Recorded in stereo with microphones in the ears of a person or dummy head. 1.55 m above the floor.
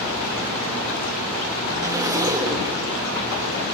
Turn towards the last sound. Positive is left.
turn(degrees=-10)  # may be behind; listen again after turning